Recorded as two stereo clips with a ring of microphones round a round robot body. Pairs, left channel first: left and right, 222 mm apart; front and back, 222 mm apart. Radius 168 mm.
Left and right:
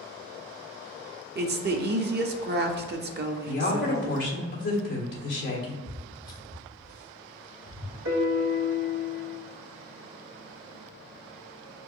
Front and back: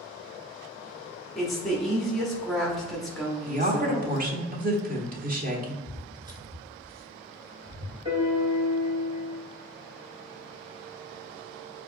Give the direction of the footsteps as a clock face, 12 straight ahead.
1 o'clock.